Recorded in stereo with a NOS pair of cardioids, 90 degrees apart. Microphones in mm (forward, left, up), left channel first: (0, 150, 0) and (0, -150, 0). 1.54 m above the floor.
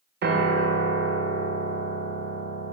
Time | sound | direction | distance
0.2 | a piano | 35° right | 0.6 m